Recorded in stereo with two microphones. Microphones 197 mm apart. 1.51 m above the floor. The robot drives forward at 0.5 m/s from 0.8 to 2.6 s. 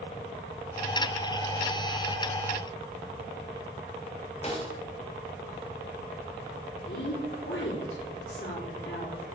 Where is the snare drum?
35° left (ahead or behind), 2.5 m.